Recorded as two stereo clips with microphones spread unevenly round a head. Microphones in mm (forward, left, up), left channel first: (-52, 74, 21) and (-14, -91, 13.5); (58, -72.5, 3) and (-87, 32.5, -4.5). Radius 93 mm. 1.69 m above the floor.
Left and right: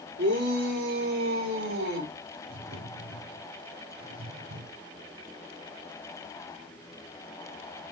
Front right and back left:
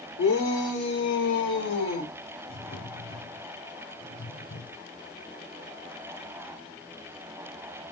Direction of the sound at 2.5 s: 70° right.